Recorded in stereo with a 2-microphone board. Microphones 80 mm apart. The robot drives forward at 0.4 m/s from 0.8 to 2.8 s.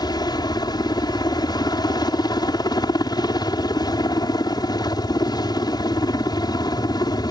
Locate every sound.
0.0 s a helicopter: 60° left (ahead or behind)